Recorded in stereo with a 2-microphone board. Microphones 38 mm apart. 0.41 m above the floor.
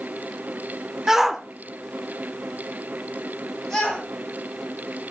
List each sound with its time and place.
1.1 s a shout: 15° right (ahead or behind), 0.8 m; by 4.0 s 15° left (ahead or behind), 2 m